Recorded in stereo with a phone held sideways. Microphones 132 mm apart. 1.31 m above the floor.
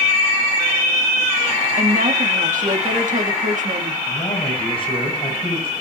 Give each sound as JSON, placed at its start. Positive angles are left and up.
{"t": 1.8, "sound": "a woman speaking", "side_deg": -70, "distance_m": 2.0}
{"t": 4.1, "sound": "a man speaking", "side_deg": 40, "distance_m": 6.0}